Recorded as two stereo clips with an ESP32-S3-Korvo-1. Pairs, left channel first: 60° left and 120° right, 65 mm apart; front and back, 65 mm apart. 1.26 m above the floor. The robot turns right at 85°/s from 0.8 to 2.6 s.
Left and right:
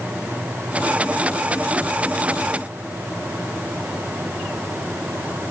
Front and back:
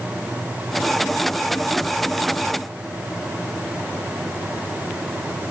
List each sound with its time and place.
Only background noise.